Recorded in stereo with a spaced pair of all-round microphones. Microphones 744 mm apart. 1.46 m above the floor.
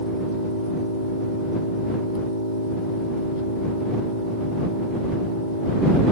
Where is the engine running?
90° right.